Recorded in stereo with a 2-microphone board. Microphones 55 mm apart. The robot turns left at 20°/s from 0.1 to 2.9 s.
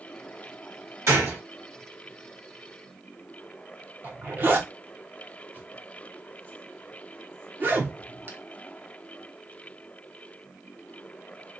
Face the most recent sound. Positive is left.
turn(degrees=-40)  # may be behind; listen again after turning